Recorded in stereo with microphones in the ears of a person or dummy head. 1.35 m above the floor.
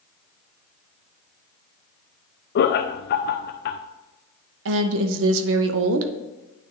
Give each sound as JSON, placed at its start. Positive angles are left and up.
{"t": 2.5, "sound": "laughter", "side_deg": 55, "distance_m": 0.5}
{"t": 4.7, "sound": "a woman speaking", "side_deg": -70, "distance_m": 0.8}